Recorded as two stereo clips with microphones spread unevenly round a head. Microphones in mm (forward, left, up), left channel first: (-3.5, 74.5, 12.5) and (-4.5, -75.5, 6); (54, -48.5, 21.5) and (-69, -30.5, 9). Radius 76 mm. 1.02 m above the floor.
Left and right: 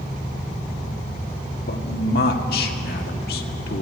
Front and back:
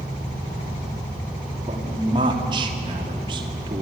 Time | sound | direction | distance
1.6 | a man speaking | 115° left | 2 m